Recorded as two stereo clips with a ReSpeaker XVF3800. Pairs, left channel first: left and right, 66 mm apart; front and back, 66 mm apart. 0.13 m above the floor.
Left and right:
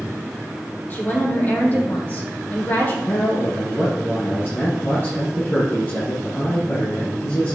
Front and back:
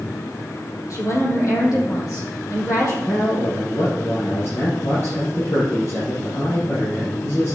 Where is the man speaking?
35° left, 4.5 m.